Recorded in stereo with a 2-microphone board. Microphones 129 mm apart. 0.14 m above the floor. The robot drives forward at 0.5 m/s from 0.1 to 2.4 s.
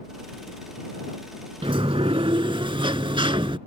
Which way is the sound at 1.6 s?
45° right (ahead or behind).